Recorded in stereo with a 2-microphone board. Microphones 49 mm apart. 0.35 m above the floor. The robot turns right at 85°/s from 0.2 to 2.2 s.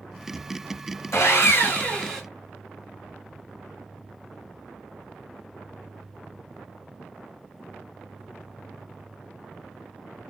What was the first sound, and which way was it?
Sawing, 85° left.